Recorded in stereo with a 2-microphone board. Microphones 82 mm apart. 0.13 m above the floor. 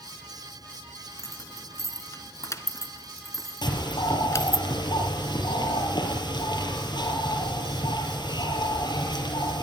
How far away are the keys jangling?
About 1.3 m.